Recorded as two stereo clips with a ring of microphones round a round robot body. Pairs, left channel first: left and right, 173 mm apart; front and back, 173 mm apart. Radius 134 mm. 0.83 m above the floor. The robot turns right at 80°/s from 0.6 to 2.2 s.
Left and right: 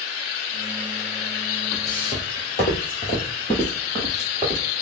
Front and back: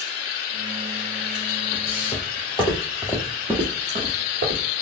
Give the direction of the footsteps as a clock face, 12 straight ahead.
12 o'clock.